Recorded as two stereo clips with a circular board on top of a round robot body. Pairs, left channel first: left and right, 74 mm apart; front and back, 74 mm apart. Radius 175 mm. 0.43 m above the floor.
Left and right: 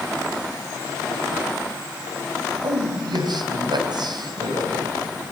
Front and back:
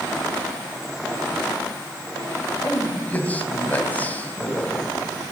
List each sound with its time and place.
2.6 s a man speaking: 65° right, 3.5 m